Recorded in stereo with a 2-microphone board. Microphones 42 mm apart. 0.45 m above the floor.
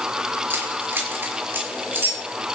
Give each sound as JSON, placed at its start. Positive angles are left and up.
{"t": 0.5, "sound": "keys jangling", "side_deg": -50, "distance_m": 5.5}